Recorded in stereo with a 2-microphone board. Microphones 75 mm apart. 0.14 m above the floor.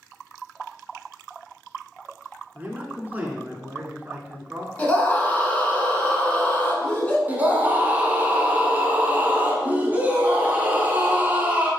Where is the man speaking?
25° right (ahead or behind), 1.2 m.